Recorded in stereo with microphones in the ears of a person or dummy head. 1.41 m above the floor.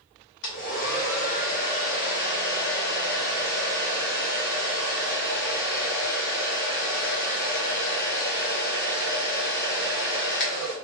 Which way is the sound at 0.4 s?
60° left (ahead or behind).